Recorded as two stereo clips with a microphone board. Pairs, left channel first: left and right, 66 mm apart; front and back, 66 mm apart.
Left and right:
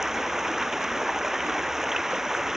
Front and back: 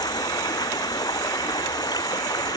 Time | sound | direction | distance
0.0 | running water | 5° right | ?